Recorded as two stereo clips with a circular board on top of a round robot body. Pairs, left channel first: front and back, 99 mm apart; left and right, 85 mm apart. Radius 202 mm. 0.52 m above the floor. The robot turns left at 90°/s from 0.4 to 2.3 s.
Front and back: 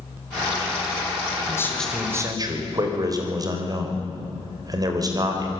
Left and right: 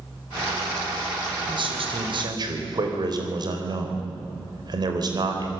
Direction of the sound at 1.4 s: 50° right.